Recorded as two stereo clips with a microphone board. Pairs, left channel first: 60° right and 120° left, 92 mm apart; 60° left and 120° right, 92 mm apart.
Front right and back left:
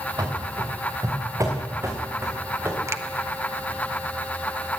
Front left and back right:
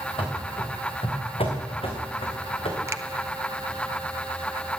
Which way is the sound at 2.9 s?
Straight behind.